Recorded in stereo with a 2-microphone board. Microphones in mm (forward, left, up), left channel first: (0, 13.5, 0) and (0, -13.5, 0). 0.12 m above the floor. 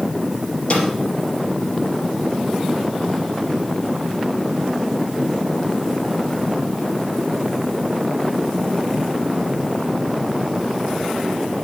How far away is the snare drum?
About 3.5 m.